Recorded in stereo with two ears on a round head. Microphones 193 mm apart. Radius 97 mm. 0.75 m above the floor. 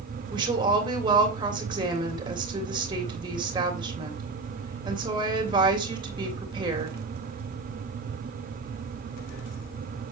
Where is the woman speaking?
20° right (ahead or behind), 2.5 m.